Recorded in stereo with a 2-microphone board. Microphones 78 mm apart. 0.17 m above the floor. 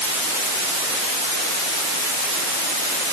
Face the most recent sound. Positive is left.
No sound to turn to.